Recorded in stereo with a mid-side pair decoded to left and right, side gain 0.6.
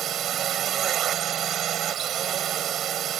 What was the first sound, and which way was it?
A drone, 50° right.